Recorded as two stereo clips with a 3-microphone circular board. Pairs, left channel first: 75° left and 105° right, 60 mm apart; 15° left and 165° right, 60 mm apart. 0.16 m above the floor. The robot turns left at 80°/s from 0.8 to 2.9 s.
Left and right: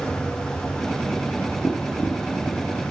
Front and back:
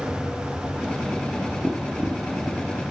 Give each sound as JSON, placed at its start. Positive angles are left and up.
{"t": 1.6, "sound": "tapping", "azimuth_deg": 115, "distance_m": 0.7}